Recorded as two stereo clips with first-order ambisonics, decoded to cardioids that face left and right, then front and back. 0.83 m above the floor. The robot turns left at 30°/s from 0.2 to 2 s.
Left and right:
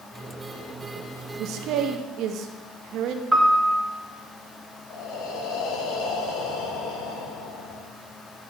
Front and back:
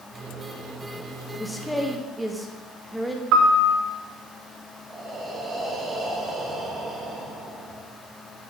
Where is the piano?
170° right, 1.2 m.